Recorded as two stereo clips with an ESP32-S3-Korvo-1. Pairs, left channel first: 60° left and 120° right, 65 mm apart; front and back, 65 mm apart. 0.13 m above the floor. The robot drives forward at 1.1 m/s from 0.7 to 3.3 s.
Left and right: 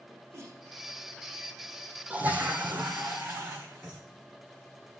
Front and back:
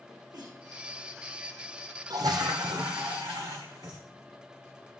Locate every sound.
0.1 s a sneeze: 170° right, 6.5 m
2.1 s a toilet flushing: 170° left, 1.0 m; by 4.0 s 175° left, 2.5 m